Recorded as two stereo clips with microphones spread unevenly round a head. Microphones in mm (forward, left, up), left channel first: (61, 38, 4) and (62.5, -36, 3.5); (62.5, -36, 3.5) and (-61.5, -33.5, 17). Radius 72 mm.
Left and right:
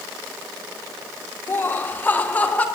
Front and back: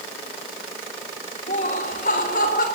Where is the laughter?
30° left, 1.7 m; by 2.6 s 20° left, 3 m.